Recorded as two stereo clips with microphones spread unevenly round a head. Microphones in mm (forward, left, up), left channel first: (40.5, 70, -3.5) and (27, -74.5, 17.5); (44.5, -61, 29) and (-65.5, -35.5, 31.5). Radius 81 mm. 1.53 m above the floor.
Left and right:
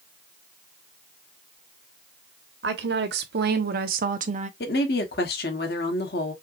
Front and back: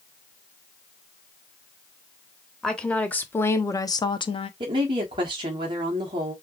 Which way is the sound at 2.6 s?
100° right.